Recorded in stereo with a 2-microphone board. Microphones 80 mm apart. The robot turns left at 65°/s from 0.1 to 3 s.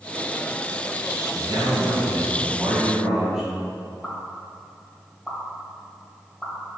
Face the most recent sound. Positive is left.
turn(degrees=0)  # may be behind; listen again after turning